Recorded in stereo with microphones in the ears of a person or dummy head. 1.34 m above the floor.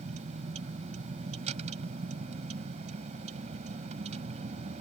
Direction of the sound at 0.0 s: 40° right (ahead or behind).